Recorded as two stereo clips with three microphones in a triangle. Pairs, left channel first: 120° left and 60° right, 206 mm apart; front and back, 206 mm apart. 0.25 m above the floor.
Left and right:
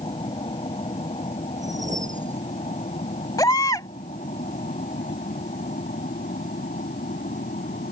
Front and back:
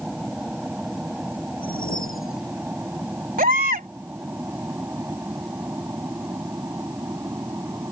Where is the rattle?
No rattle in this recording.